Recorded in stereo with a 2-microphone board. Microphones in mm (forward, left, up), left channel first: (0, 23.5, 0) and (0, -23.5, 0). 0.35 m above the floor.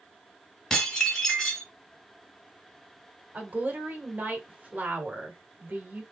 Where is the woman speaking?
35° right (ahead or behind), 1.3 m.